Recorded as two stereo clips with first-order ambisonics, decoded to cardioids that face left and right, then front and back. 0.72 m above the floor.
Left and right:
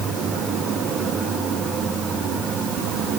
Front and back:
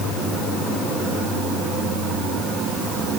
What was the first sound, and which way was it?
Only background noise.